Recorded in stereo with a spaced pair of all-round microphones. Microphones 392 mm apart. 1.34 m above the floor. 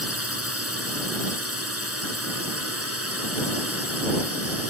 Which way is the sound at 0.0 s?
35° right (ahead or behind).